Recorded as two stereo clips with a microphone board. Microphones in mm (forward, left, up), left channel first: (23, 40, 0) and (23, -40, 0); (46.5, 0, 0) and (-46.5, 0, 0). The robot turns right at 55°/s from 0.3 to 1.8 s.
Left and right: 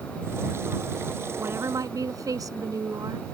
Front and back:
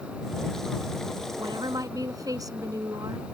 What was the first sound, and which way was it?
A woman speaking, 155° right.